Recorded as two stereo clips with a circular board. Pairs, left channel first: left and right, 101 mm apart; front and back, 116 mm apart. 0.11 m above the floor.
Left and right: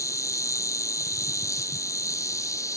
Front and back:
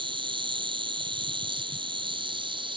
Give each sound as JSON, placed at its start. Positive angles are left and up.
{"t": 0.0, "sound": "an insect", "azimuth_deg": 145}